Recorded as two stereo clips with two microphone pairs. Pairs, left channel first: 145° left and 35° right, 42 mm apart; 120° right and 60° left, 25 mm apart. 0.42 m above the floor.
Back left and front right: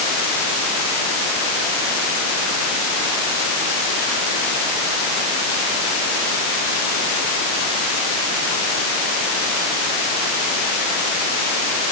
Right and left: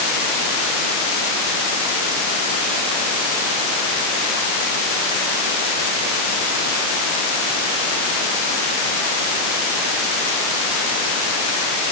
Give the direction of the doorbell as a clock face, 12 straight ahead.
I don't hear a doorbell.